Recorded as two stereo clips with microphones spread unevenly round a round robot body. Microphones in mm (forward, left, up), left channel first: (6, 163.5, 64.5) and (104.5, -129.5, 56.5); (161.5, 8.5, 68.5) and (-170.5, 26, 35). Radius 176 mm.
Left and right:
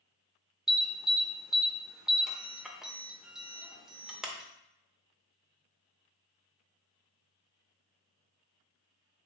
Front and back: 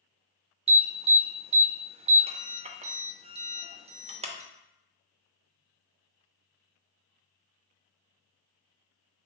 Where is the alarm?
155° right, 0.5 m.